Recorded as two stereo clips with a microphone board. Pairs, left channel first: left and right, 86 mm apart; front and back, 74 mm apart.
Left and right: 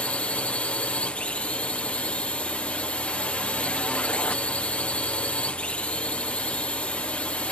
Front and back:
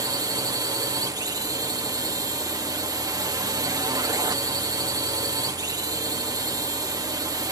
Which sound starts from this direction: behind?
A drone, at 0.0 s.